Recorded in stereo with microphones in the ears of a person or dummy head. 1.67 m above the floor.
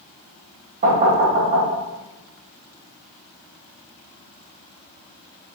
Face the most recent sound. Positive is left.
turn(degrees=-45)  # may be behind; listen again after turning